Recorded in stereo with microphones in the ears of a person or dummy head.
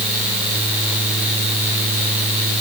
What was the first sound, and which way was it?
Only background noise.